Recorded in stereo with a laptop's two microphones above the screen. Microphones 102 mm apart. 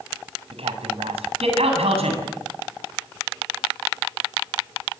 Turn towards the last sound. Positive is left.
turn(degrees=-85)